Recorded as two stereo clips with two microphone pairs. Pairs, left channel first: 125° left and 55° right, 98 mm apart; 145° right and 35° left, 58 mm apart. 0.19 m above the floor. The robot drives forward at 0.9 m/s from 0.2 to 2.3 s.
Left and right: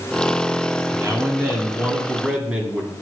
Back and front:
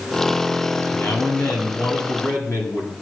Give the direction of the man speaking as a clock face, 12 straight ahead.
4 o'clock.